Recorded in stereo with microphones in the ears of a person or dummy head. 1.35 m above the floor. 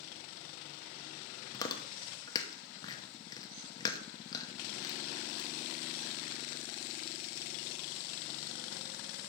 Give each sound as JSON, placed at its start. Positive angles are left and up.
{"t": 1.5, "sound": "chewing", "side_deg": 20, "distance_m": 0.9}